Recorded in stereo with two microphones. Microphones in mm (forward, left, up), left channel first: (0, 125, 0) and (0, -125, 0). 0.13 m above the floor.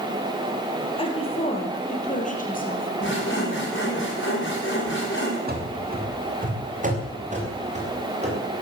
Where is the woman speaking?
20° left (ahead or behind), 4 m; by 4.0 s 45° left (ahead or behind), 4.5 m.